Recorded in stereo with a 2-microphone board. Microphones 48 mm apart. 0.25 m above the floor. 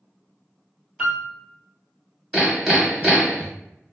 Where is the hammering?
5° right (ahead or behind), 1.3 m.